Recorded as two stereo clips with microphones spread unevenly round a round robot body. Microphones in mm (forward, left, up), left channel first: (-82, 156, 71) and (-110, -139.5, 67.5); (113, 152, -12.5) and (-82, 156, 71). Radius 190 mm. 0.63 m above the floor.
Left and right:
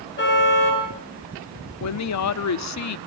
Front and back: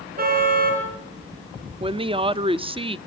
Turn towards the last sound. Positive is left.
turn(degrees=100)